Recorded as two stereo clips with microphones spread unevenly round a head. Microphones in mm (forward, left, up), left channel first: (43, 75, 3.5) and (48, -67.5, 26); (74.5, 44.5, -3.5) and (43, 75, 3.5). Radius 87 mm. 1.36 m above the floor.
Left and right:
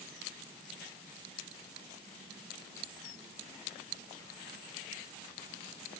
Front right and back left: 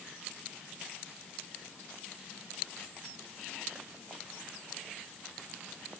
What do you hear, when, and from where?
Only background noise.